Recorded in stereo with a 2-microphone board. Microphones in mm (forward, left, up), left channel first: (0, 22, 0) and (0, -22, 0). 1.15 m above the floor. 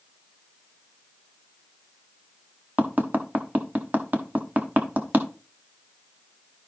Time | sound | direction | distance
2.8 | tapping | 40° right (ahead or behind) | 1.1 m